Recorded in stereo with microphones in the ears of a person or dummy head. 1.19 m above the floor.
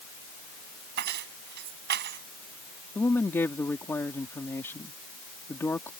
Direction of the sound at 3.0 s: 5° left (ahead or behind).